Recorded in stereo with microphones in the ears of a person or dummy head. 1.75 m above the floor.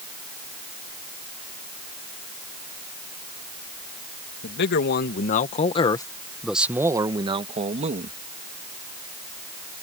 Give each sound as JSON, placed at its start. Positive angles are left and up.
{"t": 4.4, "sound": "a man speaking", "side_deg": 70}